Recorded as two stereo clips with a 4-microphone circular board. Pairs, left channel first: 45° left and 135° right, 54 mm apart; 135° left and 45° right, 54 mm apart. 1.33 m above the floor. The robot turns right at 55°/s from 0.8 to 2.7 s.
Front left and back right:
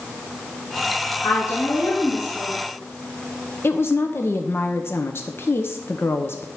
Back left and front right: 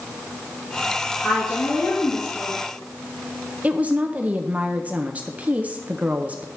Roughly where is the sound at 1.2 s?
Ahead left.